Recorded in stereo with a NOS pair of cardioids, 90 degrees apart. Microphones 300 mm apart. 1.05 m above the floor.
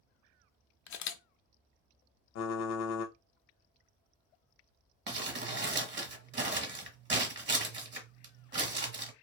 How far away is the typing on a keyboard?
About 0.6 m.